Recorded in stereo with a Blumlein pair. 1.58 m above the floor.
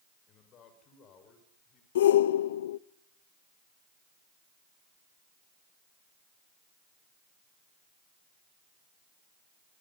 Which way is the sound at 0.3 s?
30° left.